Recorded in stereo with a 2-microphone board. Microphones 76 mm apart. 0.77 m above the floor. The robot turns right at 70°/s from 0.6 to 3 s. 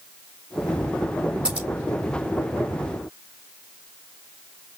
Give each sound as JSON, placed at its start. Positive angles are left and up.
{"t": 1.4, "sound": "scissors", "side_deg": -15, "distance_m": 1.9}